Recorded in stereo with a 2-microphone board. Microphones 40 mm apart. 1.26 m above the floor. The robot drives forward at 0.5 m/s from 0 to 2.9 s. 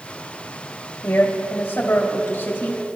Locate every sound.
1.0 s a woman speaking: 65° left (ahead or behind), 2.0 m; by 2.8 s 45° left (ahead or behind), 2.5 m